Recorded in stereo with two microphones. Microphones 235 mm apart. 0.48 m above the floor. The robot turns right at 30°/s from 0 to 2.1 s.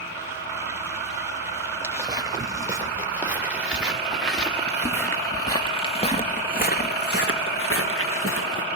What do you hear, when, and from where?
1.8 s footsteps: 10° right (ahead or behind), 4.5 m; by 8.7 s 75° left (ahead or behind), 2.5 m